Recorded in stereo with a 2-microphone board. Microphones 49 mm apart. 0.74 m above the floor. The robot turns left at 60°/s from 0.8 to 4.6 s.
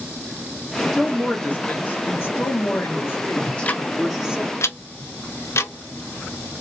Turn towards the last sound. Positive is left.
turn(degrees=70)  # may be behind; listen again after turning